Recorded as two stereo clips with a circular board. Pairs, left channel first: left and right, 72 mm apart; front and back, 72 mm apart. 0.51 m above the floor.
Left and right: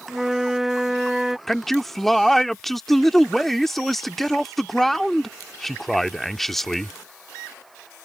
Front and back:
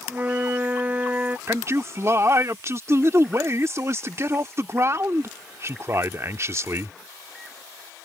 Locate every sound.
0.1 s a flute: 165° right
1.5 s a man speaking: 175° left